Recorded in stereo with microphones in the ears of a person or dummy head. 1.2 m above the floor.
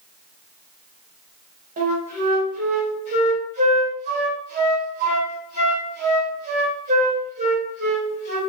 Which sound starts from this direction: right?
A flute, at 1.8 s.